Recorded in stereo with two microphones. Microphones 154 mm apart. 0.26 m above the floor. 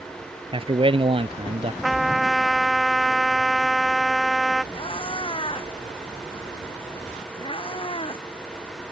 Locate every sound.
0.5 s a man speaking: 35° right (ahead or behind)
1.8 s a trumpet: centre (ahead or behind)
4.7 s a cat meowing: 35° left (ahead or behind)